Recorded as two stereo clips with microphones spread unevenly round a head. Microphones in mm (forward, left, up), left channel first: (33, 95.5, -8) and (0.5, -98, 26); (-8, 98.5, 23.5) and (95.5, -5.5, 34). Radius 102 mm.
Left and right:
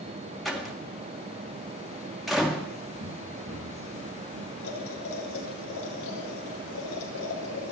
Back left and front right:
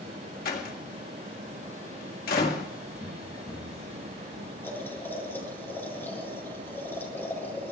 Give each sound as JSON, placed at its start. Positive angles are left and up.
{"t": 0.5, "sound": "a door slam", "azimuth_deg": 170, "distance_m": 1.6}
{"t": 3.0, "sound": "running footsteps", "azimuth_deg": -155, "distance_m": 9.5}
{"t": 4.6, "sound": "boiling", "azimuth_deg": 60, "distance_m": 8.5}